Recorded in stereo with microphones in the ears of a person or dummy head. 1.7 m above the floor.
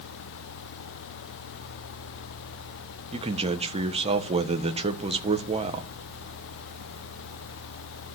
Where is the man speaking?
30° right (ahead or behind), 1.5 m.